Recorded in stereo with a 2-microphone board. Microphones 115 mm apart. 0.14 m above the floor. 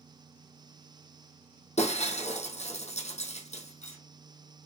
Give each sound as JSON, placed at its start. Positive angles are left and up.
{"t": 1.8, "sound": "breaking glass", "side_deg": 75, "distance_m": 3.5}